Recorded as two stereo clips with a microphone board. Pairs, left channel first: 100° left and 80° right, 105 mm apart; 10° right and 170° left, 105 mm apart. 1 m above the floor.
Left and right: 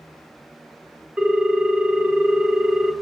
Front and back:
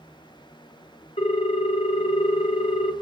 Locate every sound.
1.2 s a ringtone: straight ahead, 0.6 m